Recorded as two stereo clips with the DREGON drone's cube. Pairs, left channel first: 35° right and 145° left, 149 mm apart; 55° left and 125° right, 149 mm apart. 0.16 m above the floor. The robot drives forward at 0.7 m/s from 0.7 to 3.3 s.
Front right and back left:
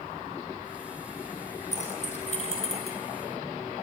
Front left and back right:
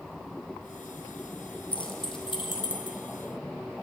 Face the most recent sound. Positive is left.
turn(degrees=5)